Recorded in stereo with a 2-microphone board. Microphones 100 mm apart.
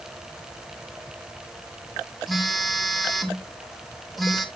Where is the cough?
I don't hear a cough.